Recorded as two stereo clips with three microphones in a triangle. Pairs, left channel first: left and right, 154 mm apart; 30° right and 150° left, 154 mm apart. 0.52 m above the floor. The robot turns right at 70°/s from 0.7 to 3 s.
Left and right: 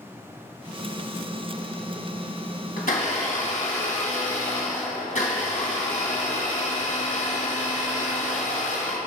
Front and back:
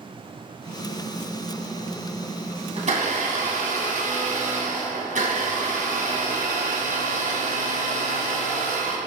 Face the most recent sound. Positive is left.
turn(degrees=120)